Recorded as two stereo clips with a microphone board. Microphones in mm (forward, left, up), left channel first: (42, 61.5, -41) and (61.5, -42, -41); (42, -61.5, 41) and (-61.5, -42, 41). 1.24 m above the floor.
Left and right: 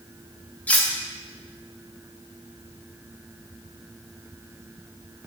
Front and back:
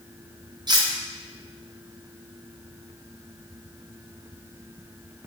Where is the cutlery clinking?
175° left, 0.5 m.